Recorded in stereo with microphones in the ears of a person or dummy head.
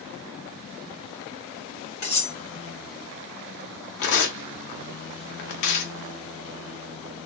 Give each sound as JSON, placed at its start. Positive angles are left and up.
{"t": 2.0, "sound": "cutlery clinking", "side_deg": 20, "distance_m": 1.8}
{"t": 4.0, "sound": "tearing paper", "side_deg": 65, "distance_m": 0.6}